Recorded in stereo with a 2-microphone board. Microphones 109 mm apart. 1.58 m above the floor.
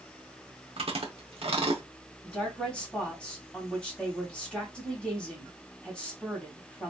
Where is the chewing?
65° right (ahead or behind), 0.9 m.